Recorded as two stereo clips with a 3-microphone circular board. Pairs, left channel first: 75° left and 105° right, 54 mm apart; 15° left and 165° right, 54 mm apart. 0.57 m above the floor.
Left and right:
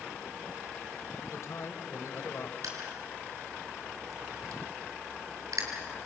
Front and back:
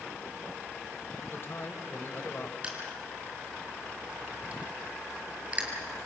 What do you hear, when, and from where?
1.3 s a man speaking: 55° left, 3 m
2.6 s crushing: 100° right, 4 m